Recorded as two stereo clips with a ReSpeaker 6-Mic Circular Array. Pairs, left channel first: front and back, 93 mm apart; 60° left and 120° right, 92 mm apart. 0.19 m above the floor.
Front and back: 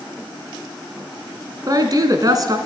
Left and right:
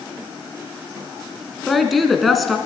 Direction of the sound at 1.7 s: 150° left.